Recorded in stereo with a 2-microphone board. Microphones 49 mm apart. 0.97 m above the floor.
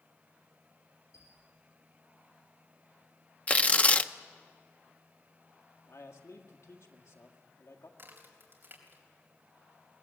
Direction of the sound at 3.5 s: 30° left (ahead or behind).